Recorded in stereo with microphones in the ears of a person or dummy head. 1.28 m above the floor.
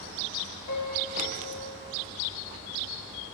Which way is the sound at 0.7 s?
80° left.